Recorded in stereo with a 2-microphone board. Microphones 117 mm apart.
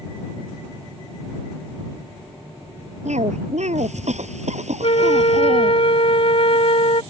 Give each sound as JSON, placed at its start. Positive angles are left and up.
{"t": 3.0, "sound": "a cough", "side_deg": -80}
{"t": 4.8, "sound": "a flute", "side_deg": 55}